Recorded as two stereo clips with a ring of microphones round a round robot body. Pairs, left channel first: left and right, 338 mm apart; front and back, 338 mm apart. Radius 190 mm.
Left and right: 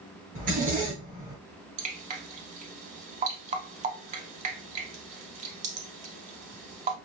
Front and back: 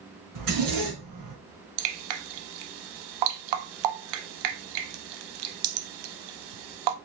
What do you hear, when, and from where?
0.3 s a zipper: 160° right, 2.5 m
1.8 s dripping: 160° right, 0.5 m